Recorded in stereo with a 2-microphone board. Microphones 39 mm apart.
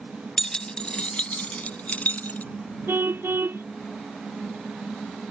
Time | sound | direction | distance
0.4 | keys jangling | 15° left (ahead or behind) | ?
2.9 | a car horn | 70° right (ahead or behind) | ?